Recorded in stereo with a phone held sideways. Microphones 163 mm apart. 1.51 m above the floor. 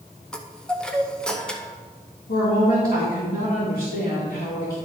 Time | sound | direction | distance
0.3 | a chime | 5° left (ahead or behind) | 0.8 m
2.3 | a woman speaking | 80° left | 2.5 m